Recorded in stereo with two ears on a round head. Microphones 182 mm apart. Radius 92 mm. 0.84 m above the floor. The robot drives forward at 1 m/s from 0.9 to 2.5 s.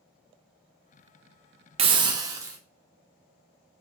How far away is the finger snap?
I don't hear a finger snap.